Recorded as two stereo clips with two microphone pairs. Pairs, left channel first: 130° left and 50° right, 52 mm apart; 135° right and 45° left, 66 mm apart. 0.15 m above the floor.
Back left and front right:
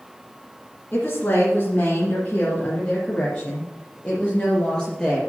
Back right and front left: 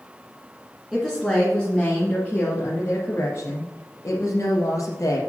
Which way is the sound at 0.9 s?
140° left.